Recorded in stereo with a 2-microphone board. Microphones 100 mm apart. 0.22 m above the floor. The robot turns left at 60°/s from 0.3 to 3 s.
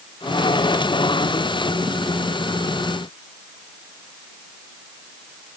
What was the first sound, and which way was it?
Only background noise.